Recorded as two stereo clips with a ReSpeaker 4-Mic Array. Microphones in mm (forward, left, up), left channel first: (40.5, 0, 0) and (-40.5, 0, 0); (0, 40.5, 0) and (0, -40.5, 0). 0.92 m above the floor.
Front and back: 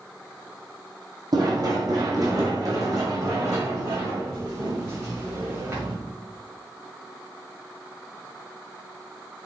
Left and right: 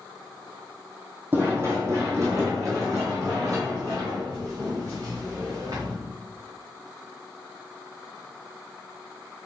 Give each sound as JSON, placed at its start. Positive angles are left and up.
{"t": 1.3, "sound": "running footsteps", "azimuth_deg": -150, "distance_m": 2.5}